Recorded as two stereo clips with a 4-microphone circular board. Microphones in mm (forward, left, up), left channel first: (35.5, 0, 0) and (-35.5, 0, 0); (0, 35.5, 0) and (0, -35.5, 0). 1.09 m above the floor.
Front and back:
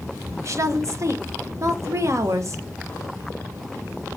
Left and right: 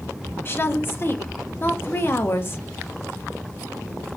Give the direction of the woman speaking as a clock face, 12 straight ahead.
7 o'clock.